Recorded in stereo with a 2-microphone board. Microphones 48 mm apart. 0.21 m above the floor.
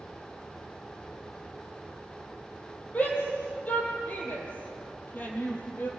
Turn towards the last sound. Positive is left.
turn(degrees=40)  # may be behind; listen again after turning